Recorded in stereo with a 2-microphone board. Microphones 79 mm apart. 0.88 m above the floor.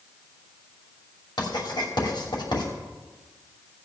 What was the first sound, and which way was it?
Writing, 70° left (ahead or behind).